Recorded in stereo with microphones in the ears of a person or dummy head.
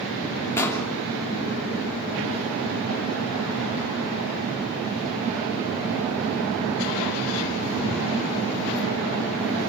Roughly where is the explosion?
Centre.